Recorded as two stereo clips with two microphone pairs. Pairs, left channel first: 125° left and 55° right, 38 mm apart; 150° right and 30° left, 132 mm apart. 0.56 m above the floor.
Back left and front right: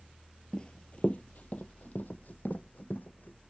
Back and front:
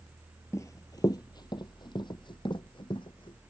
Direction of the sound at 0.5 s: 165° left.